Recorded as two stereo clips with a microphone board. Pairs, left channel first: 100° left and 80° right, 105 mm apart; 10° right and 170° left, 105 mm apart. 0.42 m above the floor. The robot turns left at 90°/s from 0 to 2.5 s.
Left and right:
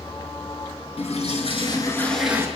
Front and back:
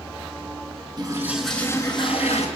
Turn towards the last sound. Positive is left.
turn(degrees=-15)